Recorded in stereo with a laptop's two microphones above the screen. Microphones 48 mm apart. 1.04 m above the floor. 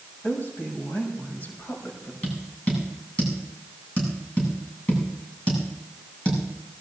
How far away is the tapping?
About 8 m.